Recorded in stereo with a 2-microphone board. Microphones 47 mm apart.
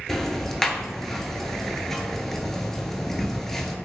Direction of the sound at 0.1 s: 10° left (ahead or behind).